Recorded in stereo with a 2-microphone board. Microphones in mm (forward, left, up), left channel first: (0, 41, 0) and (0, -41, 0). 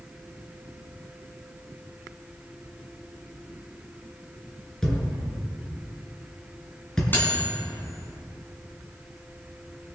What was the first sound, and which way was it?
A thud, 10° left (ahead or behind).